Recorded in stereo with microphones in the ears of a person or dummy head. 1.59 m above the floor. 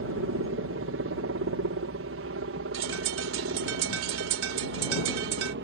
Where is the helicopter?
60° right (ahead or behind); by 5.7 s 55° right (ahead or behind).